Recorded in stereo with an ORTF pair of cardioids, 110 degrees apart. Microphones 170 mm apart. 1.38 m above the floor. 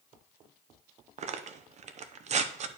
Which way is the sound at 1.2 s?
45° right.